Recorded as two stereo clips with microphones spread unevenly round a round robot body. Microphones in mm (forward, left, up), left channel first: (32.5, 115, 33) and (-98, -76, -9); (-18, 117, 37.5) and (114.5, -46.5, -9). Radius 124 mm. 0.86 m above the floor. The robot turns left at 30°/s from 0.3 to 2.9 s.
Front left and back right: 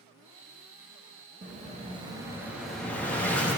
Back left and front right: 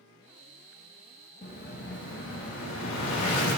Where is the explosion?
170° right, 1.3 m; by 3.6 s 145° left, 1.3 m.